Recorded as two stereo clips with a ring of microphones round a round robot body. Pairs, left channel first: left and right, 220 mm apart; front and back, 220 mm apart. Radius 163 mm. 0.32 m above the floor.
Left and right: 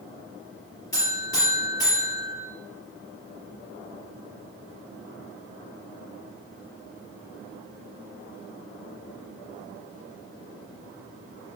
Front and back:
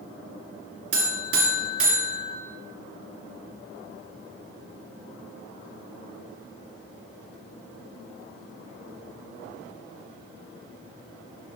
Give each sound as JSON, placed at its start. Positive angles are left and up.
{"t": 0.9, "sound": "a buzzer", "azimuth_deg": 170, "distance_m": 2.5}